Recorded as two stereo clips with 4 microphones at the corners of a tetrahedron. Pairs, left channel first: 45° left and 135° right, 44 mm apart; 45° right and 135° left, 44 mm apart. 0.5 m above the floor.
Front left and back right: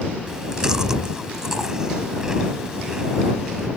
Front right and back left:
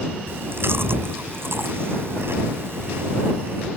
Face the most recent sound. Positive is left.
turn(degrees=150)